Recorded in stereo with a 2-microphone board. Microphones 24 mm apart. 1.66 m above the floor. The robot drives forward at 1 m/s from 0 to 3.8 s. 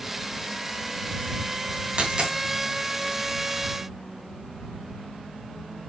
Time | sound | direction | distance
2.0 | a dropped coin | 40° right (ahead or behind) | 3 m